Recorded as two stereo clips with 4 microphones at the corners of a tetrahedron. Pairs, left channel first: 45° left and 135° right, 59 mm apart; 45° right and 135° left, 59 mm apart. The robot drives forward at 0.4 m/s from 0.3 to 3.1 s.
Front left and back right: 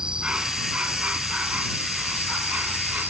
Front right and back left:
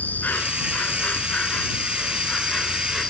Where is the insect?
75° right; by 3.1 s 115° right.